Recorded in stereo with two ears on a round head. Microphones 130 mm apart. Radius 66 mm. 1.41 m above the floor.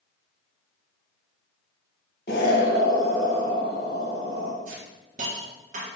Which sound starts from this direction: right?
A hiss, at 4.7 s.